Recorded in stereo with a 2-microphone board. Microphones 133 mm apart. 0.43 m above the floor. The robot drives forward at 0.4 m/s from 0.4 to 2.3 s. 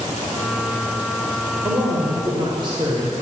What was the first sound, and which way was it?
A woman speaking, 40° right (ahead or behind).